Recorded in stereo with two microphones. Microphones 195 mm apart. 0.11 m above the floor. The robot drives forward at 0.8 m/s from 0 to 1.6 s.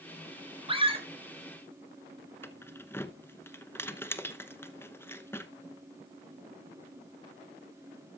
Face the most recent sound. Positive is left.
turn(degrees=10)  # may be behind; listen again after turning